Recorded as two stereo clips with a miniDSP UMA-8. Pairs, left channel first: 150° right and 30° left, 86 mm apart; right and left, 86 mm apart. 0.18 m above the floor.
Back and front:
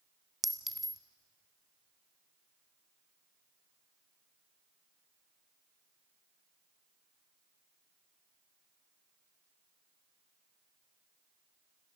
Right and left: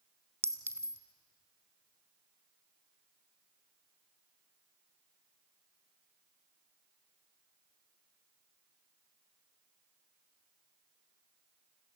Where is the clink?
115° left, 1.1 m.